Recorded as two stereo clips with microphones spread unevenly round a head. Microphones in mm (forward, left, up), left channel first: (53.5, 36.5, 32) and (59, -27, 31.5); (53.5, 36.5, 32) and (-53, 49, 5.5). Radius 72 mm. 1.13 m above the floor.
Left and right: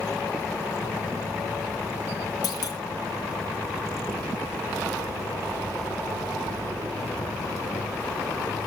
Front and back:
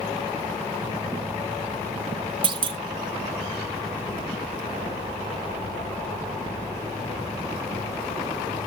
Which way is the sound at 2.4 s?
135° left.